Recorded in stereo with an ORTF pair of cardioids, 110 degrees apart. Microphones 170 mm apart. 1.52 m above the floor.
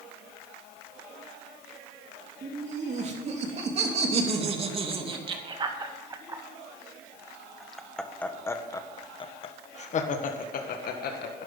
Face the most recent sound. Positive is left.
turn(degrees=65)